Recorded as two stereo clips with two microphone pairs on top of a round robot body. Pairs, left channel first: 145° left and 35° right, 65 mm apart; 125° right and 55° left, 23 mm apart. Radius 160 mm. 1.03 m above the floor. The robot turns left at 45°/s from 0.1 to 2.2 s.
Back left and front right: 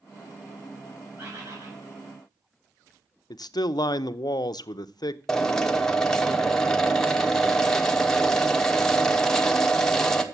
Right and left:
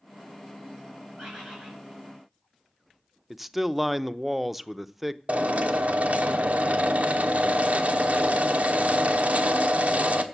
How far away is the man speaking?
About 0.6 m.